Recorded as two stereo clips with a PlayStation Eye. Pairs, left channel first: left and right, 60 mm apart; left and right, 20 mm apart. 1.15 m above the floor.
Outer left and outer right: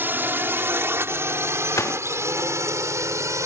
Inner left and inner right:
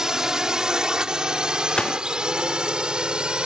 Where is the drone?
35° right (ahead or behind); by 3.5 s 60° right (ahead or behind).